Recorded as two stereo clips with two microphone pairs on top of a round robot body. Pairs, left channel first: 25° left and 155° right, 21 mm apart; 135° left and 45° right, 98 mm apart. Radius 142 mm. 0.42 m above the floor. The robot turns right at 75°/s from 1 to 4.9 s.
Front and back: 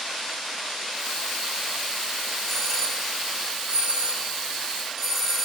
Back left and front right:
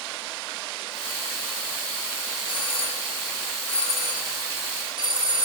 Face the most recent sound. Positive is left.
turn(degrees=-65)